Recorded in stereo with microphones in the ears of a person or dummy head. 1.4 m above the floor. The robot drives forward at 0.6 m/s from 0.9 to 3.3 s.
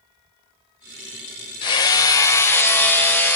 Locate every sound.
1.6 s hammering: 25° left (ahead or behind), 0.5 m; by 3.4 s 10° left (ahead or behind), 1.2 m